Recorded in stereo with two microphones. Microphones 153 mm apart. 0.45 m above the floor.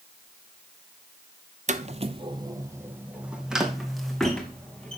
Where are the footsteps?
55° right (ahead or behind), 0.7 m; by 5.0 s 5° left (ahead or behind), 2 m.